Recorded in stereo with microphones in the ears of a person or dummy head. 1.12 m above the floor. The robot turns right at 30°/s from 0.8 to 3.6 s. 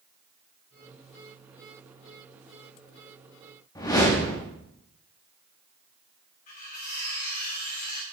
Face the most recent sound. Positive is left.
turn(degrees=45)  # may be behind; listen again after turning